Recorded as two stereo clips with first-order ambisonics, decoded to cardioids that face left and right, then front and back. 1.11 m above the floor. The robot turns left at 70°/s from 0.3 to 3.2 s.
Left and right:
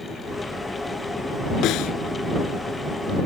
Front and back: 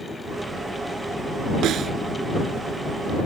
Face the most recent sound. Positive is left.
turn(degrees=20)